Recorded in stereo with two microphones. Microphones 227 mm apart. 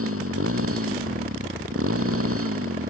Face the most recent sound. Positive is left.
turn(degrees=-75)  # may be behind; listen again after turning